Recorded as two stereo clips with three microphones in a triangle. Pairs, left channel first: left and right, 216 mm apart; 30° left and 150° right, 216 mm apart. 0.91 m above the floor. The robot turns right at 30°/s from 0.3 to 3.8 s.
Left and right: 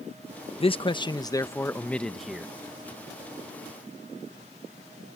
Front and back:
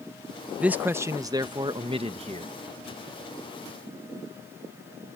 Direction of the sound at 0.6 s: 130° left.